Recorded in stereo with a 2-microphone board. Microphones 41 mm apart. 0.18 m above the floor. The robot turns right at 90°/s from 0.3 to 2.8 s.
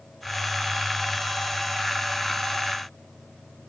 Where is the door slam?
I don't hear a door slam.